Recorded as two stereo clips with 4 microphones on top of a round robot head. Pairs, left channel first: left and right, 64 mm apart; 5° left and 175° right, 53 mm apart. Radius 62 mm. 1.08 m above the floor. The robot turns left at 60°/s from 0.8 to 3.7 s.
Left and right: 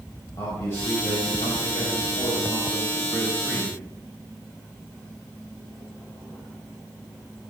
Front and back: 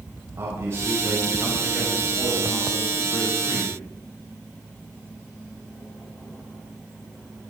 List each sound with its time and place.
0.4 s a man speaking: 150° left, 5.5 m; by 3.8 s 25° right, 5.5 m